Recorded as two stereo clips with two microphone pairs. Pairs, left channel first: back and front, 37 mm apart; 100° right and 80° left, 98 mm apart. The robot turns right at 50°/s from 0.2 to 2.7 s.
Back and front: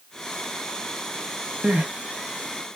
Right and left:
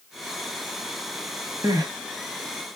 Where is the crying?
30° left, 1.1 m; by 1.9 s 40° left, 1.1 m.